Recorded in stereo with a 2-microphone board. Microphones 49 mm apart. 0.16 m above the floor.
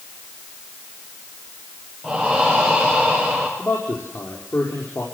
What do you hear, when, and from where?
2.0 s breathing: 5° left (ahead or behind), 8.5 m
3.6 s a man speaking: 70° left (ahead or behind), 5.5 m